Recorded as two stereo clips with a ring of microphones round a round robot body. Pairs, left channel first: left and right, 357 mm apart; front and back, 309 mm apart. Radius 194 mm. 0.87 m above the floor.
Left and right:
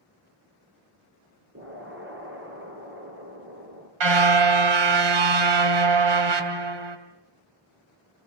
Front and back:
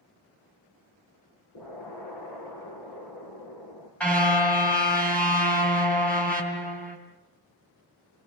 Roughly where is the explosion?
Ahead right.